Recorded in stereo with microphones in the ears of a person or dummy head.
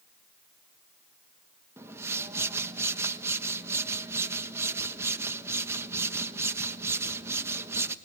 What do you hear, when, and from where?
1.8 s a whoosh: 15° right (ahead or behind), 1.3 m